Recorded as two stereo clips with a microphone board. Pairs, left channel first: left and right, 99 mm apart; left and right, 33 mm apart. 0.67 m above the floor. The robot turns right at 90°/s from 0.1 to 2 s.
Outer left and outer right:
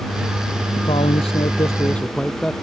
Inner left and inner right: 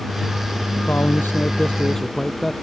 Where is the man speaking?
60° left; by 2.5 s 170° left.